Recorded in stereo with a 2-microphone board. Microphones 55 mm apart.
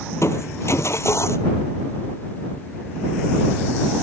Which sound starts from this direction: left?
Crushing, at 0.1 s.